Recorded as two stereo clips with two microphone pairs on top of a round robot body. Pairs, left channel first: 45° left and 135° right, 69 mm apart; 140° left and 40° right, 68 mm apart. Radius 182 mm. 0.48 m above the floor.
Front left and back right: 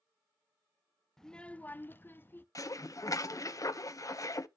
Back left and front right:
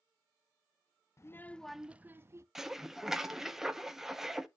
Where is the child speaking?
115° left, 0.6 m; by 2.5 s 10° right, 0.9 m.